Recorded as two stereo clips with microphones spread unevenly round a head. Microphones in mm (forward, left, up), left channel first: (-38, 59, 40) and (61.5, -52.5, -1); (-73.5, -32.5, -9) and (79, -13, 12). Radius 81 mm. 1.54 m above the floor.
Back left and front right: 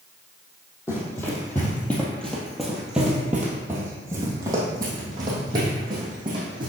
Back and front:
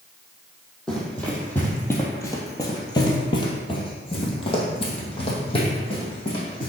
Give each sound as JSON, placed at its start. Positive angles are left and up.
{"t": 0.9, "sound": "running footsteps", "azimuth_deg": 95, "distance_m": 1.9}